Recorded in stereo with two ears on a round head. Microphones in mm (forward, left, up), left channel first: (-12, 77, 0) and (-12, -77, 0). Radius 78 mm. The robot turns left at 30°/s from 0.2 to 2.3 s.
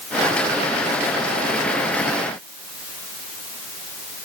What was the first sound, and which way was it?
Only background noise.